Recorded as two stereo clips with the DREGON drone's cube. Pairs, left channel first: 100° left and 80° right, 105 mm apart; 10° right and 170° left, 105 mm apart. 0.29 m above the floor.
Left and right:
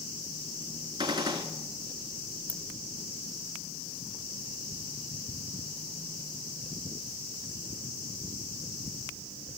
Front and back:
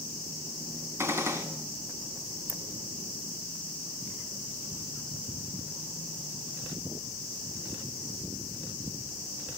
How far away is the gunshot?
About 1.1 m.